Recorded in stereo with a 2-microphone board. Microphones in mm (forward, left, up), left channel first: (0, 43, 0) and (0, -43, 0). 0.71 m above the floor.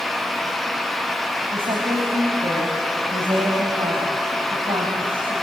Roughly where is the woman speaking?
Right.